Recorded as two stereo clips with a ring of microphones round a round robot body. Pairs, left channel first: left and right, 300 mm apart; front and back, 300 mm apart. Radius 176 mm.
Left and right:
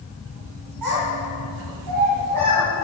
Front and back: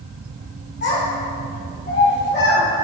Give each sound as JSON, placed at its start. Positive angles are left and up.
{"t": 0.8, "sound": "a child speaking", "azimuth_deg": -55, "distance_m": 4.5}